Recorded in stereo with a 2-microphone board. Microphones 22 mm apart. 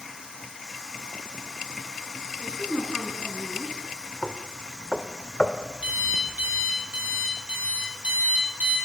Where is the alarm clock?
75° right (ahead or behind), 7.5 m.